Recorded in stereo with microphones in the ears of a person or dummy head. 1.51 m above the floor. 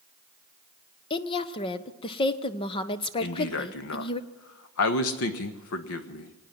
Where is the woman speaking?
30° left (ahead or behind), 0.9 m.